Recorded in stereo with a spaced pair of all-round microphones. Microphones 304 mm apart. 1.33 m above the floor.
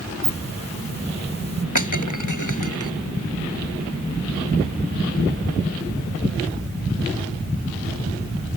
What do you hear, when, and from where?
0.2 s a hiss: 55° right (ahead or behind)
1.8 s breaking glass: 75° left (ahead or behind)